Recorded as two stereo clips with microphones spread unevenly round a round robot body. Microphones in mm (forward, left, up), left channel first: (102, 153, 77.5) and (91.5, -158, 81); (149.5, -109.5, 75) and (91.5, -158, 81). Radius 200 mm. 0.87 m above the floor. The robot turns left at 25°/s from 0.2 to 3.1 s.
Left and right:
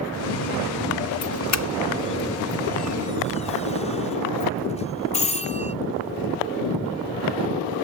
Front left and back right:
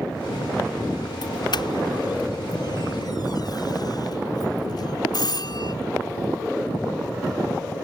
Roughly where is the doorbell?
Ahead left.